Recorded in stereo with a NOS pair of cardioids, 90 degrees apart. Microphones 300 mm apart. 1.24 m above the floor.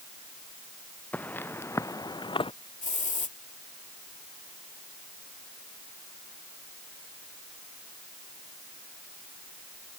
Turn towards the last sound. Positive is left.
turn(degrees=25)